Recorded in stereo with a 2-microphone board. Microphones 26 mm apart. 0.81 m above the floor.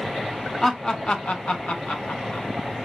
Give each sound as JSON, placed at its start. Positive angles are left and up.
{"t": 0.6, "sound": "laughter", "side_deg": 20, "distance_m": 0.5}